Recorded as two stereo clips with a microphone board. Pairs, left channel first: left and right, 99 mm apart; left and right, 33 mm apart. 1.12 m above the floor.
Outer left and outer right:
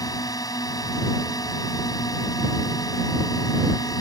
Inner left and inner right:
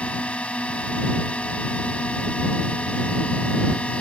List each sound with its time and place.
0.0 s a drone: 40° left (ahead or behind)